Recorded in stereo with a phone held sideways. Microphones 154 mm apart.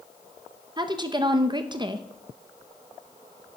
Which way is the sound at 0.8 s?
30° right (ahead or behind).